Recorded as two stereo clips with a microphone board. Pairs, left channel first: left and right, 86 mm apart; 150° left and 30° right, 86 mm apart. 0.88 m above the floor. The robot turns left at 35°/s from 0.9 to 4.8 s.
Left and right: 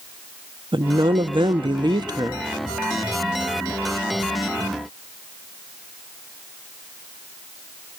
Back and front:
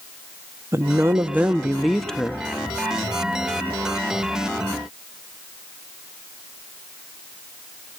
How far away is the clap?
I don't hear a clap.